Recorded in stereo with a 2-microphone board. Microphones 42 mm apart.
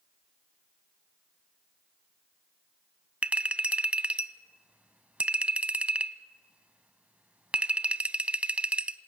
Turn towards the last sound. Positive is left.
turn(degrees=-30)  # may be behind; listen again after turning